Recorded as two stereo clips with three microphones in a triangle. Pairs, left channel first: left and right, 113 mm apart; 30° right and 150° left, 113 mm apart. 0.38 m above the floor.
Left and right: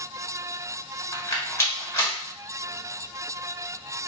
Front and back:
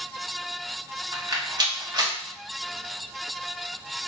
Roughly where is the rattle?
Behind left.